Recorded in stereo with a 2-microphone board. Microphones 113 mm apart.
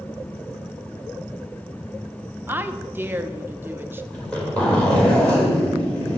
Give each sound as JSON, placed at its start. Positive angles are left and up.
{"t": 2.5, "sound": "a woman speaking", "side_deg": -20, "distance_m": 0.6}
{"t": 4.1, "sound": "a zipper", "side_deg": 10, "distance_m": 3.0}